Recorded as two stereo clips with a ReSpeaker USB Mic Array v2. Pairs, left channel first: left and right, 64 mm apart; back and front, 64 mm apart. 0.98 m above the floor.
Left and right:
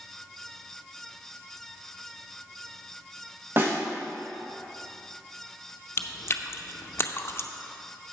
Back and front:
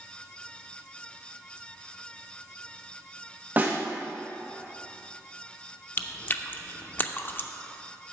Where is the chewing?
130° left, 0.5 m.